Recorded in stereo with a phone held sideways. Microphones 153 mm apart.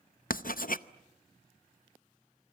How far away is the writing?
About 0.7 m.